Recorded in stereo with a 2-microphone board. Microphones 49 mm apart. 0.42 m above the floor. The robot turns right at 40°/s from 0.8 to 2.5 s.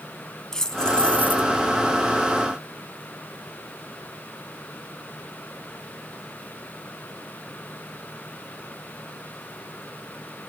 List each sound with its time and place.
0.5 s keys jangling: 10° left (ahead or behind); by 1.5 s 40° left (ahead or behind)